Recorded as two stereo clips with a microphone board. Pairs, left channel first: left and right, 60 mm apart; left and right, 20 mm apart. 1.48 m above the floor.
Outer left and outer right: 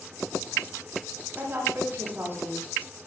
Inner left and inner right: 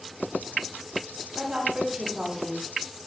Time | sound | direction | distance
1.4 | a woman speaking | 40° right (ahead or behind) | 9 m